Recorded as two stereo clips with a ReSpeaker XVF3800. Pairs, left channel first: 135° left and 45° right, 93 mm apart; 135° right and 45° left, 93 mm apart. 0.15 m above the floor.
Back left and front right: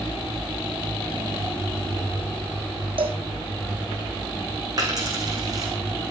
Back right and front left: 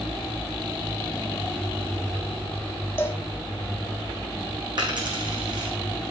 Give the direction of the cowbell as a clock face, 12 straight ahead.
2 o'clock.